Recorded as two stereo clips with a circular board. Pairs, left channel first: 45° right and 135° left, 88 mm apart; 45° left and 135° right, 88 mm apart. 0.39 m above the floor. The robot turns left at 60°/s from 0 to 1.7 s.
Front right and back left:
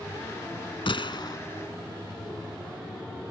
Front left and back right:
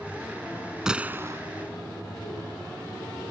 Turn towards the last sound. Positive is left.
turn(degrees=-105)